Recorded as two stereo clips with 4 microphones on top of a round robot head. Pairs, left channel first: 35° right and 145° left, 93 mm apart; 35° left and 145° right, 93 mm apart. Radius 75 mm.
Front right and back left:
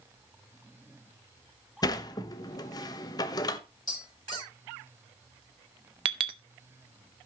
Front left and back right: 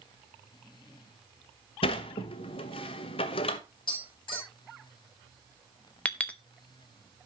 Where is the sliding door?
10° left, 0.8 m.